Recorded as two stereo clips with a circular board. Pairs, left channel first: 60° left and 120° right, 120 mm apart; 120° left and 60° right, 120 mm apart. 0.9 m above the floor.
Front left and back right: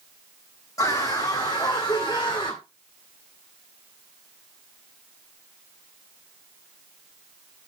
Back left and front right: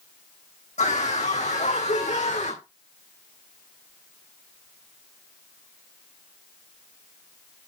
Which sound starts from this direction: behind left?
A scream, at 0.8 s.